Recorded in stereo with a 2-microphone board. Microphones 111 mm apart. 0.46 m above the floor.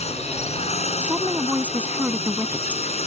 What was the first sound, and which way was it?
A drone, 75° left (ahead or behind).